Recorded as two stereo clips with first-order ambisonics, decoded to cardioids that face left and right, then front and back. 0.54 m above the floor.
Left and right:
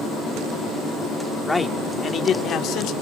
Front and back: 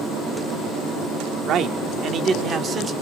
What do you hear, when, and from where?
1.5 s a man speaking: 175° left, 1.0 m; by 2.9 s 115° left, 1.3 m